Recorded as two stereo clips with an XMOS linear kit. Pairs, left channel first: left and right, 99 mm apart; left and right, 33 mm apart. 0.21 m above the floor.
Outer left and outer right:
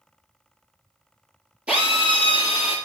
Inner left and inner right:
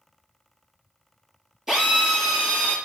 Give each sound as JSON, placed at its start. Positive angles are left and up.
{"t": 1.7, "sound": "a drill", "side_deg": -10, "distance_m": 5.0}